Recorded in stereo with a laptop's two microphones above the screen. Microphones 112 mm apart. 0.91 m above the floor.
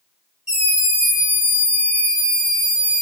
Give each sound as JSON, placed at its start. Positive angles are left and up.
{"t": 0.5, "sound": "a scream", "side_deg": 80, "distance_m": 2.5}